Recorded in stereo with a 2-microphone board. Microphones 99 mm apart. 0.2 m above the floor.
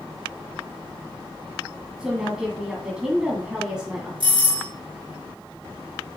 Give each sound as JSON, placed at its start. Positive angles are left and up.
{"t": 2.0, "sound": "a woman speaking", "side_deg": -5, "distance_m": 1.9}
{"t": 4.2, "sound": "a doorbell", "side_deg": -60, "distance_m": 3.5}